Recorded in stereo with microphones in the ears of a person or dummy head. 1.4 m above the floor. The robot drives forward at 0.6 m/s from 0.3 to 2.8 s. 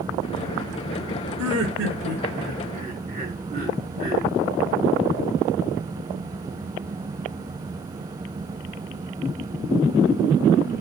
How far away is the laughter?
About 0.7 m.